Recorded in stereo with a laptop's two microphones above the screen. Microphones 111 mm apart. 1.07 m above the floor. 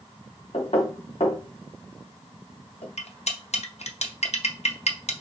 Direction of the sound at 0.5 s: 60° left (ahead or behind).